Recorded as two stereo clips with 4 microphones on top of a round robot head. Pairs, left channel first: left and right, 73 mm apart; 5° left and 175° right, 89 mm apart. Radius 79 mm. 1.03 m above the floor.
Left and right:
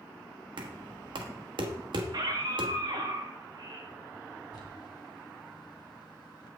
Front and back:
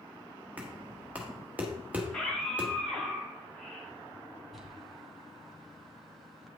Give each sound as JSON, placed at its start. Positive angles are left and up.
{"t": 0.6, "sound": "knocking", "azimuth_deg": -100, "distance_m": 1.0}
{"t": 2.0, "sound": "a scream", "azimuth_deg": -80, "distance_m": 2.0}
{"t": 4.5, "sound": "crumpling", "azimuth_deg": 95, "distance_m": 1.7}